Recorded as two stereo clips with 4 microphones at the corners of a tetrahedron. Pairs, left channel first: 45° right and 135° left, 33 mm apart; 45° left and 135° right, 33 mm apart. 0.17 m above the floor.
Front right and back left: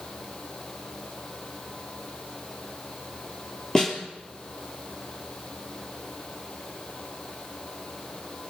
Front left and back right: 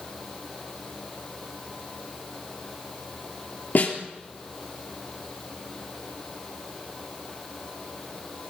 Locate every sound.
3.8 s a snare drum: 25° left, 3.5 m